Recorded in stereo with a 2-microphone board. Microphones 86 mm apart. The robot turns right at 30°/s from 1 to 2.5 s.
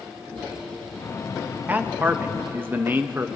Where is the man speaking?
20° right (ahead or behind), 0.6 m.